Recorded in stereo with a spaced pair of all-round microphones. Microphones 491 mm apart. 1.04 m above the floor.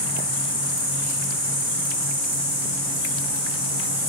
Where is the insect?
30° left (ahead or behind), 0.8 m.